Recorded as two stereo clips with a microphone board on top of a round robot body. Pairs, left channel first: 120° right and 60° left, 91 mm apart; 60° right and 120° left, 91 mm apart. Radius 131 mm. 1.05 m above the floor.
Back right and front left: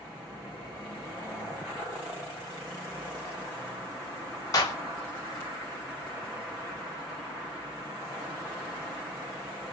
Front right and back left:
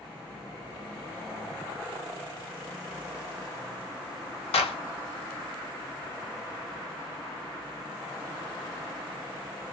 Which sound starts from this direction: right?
A clap, at 4.5 s.